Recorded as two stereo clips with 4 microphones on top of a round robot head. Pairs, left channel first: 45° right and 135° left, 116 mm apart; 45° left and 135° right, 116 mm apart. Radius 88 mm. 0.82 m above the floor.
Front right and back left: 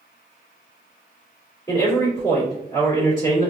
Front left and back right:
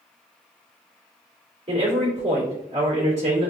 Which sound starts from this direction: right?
A man speaking, at 1.7 s.